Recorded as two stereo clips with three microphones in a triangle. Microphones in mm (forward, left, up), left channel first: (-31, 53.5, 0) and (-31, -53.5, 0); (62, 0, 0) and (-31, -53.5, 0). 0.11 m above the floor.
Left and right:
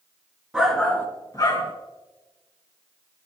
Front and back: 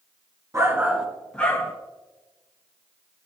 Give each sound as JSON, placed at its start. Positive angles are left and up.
{"t": 0.5, "sound": "a shout", "azimuth_deg": -165, "distance_m": 1.3}